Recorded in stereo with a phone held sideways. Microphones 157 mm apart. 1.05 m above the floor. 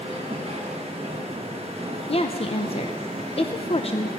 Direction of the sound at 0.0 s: 40° right (ahead or behind).